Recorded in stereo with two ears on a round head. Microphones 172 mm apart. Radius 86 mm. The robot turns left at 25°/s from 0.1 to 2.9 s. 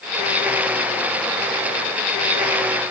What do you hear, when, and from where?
Only background noise.